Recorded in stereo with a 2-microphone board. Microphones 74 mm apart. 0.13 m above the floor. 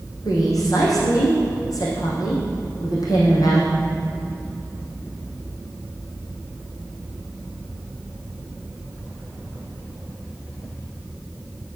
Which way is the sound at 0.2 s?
55° left (ahead or behind).